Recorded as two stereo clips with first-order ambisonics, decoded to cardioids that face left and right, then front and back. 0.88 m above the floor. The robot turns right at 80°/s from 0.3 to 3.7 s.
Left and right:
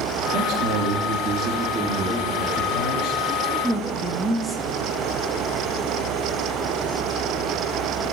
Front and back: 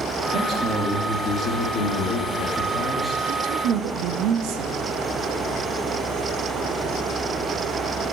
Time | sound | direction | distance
0.3 | a man speaking | 135° right | 2 m
3.3 | a woman speaking | 155° left | 1.1 m